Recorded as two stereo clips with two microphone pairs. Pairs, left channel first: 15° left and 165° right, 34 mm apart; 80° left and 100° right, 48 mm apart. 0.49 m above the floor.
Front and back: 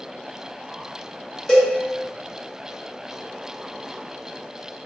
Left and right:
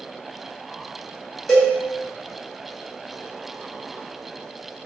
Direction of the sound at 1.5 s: 30° left.